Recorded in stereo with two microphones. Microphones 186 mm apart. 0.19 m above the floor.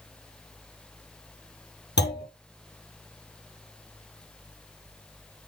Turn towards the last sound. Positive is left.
turn(degrees=65)  # may be behind; listen again after turning